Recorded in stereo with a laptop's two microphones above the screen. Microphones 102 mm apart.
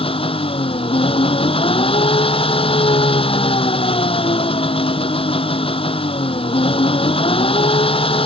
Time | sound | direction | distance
0.0 | an engine running | 65° left (ahead or behind) | ?